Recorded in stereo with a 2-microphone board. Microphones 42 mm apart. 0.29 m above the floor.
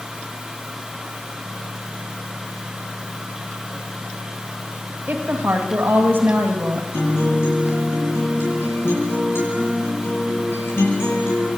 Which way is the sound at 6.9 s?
70° left (ahead or behind).